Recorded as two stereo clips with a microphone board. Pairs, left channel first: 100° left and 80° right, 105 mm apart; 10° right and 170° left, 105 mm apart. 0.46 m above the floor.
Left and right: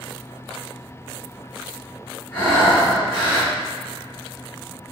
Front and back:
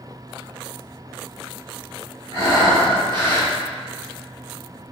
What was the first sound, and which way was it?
Breathing, 175° left.